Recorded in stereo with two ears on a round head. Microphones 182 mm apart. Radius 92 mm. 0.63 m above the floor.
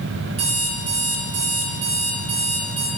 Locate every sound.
0.4 s an alarm clock: 30° right (ahead or behind), 6 m